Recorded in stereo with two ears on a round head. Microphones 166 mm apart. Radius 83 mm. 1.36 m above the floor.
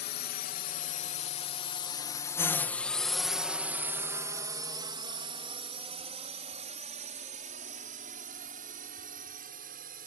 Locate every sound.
0.0 s a drone: 55° left (ahead or behind); by 10.1 s 50° right (ahead or behind)